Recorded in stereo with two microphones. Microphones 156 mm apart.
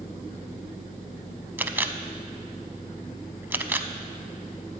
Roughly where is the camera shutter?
Centre.